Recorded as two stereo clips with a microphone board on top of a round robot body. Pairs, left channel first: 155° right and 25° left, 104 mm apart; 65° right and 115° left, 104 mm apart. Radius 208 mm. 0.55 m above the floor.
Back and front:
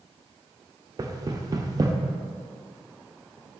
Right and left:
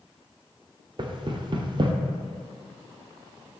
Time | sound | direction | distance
1.0 | knocking | 75° left | 0.8 m